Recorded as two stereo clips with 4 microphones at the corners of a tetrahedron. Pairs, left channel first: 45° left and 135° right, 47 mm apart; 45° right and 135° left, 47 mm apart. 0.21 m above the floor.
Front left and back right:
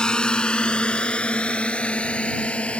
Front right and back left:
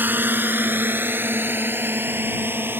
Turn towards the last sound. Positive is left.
turn(degrees=105)